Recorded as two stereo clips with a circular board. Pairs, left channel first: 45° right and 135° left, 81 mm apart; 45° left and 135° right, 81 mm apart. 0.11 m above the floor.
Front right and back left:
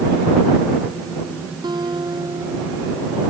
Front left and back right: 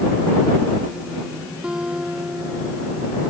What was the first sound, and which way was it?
A guitar, 145° left.